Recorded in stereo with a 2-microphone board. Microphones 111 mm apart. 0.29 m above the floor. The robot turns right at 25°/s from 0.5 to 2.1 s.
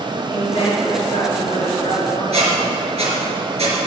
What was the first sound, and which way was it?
A woman speaking, 35° left.